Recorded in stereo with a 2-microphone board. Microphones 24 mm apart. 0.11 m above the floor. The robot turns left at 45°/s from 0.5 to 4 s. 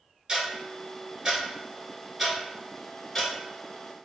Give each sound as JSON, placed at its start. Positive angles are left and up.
{"t": 0.3, "sound": "ticking", "side_deg": -30, "distance_m": 1.8}